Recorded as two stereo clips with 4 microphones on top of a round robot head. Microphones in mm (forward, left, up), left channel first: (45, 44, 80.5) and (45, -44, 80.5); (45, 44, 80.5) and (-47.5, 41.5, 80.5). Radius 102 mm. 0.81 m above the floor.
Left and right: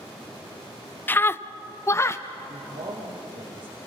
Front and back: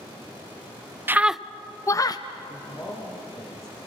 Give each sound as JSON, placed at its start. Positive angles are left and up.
{"t": 1.1, "sound": "a scream", "azimuth_deg": 135, "distance_m": 0.6}
{"t": 2.5, "sound": "a man speaking", "azimuth_deg": -60, "distance_m": 4.5}